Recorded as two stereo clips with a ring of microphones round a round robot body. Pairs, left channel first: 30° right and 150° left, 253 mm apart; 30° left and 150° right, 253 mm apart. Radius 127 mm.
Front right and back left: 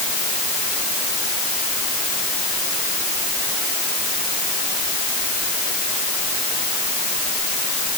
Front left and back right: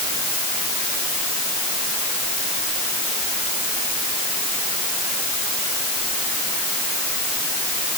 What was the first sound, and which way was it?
Only background noise.